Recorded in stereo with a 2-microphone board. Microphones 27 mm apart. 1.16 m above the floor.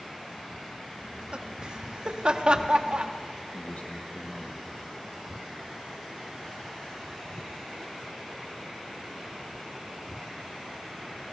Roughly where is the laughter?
Right.